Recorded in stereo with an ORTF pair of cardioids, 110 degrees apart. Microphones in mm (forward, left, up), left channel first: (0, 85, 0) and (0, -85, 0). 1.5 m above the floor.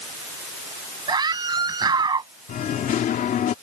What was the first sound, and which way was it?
A scream, 25° right.